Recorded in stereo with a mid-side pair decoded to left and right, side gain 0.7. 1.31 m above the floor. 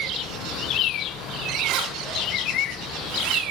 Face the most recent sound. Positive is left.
turn(degrees=-65)